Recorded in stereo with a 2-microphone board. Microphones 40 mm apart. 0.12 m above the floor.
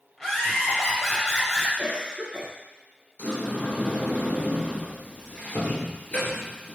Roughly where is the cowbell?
I don't hear a cowbell.